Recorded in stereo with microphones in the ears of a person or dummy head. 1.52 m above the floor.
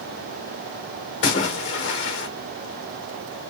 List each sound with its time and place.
1.2 s a splash: 20° left (ahead or behind), 0.6 m